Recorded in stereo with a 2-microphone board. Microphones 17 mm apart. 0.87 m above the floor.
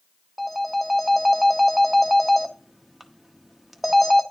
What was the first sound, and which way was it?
A phone ringing, centre (ahead or behind).